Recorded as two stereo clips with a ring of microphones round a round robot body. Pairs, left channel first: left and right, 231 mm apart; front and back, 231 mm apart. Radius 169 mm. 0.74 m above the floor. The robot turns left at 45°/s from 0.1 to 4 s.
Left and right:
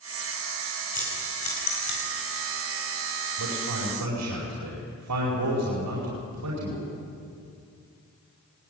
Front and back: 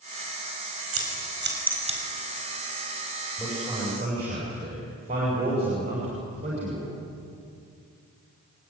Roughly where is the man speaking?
Right.